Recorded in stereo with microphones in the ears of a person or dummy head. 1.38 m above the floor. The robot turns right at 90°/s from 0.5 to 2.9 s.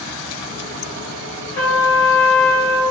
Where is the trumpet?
70° left, 1.2 m; by 2.8 s 175° right, 1.2 m.